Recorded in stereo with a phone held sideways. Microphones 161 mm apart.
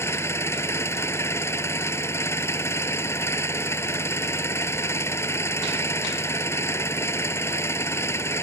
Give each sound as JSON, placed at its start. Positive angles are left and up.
{"t": 0.0, "sound": "an engine running", "side_deg": 15}